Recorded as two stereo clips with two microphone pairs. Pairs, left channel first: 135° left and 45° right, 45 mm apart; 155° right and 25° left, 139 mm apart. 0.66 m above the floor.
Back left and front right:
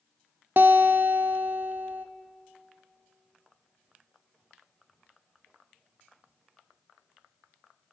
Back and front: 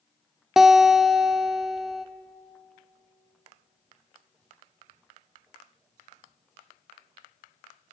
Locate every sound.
0.6 s a guitar: 60° right, 1.3 m